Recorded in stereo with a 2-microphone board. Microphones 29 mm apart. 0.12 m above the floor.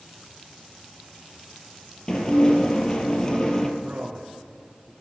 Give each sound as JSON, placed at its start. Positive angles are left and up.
{"t": 2.1, "sound": "dishes clattering", "side_deg": 30, "distance_m": 2.0}
{"t": 3.8, "sound": "a man speaking", "side_deg": -65, "distance_m": 3.0}